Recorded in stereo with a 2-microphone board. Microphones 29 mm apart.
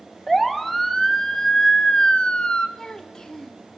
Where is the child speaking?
20° left (ahead or behind), 2 m.